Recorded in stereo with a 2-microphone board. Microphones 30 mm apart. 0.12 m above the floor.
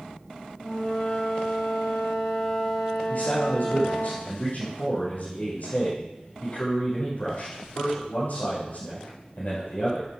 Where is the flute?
45° left (ahead or behind), 4 m.